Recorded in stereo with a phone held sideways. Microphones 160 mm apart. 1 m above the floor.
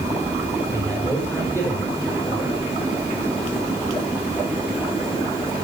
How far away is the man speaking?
About 4.5 m.